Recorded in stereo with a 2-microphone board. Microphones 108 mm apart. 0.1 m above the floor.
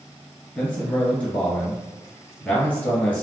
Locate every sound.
0.6 s a man speaking: 5° left (ahead or behind), 1.4 m